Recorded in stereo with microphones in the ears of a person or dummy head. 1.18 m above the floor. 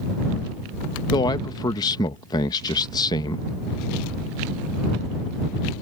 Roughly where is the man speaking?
Left.